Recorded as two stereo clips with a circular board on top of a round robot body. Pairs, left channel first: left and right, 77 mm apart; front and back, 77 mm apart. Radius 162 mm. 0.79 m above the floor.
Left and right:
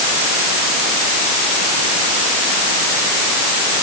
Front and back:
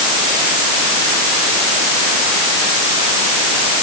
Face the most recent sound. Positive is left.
No sound to turn to.